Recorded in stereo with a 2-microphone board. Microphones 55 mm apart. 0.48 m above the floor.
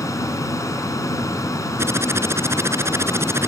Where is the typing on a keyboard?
55° right (ahead or behind).